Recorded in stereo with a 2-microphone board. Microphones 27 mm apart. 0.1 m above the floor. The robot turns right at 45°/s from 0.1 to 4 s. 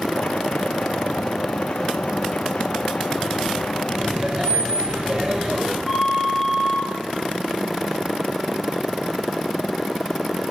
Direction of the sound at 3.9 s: 40° right (ahead or behind).